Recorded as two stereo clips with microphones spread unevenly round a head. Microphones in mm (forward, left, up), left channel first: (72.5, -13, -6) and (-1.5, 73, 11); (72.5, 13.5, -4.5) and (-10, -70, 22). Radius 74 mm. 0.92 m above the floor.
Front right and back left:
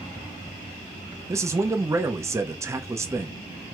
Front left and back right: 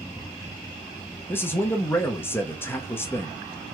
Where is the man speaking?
70° left, 0.6 m.